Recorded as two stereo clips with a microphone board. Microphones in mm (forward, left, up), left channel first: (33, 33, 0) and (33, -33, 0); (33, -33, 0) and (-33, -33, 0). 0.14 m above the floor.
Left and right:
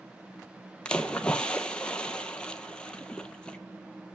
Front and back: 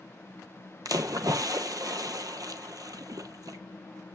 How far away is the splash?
About 0.7 m.